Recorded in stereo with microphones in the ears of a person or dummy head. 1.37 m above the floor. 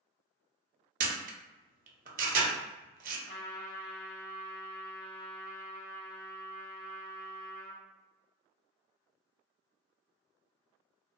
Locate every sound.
1.0 s a camera shutter: 40° right (ahead or behind), 0.7 m
3.3 s a trumpet: 40° left (ahead or behind), 0.6 m